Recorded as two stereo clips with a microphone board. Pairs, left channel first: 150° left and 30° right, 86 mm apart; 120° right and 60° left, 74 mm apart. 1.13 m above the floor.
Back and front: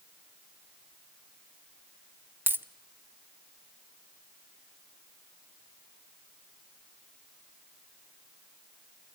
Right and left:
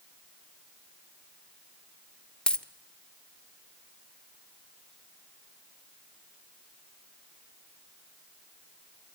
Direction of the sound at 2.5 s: 60° right.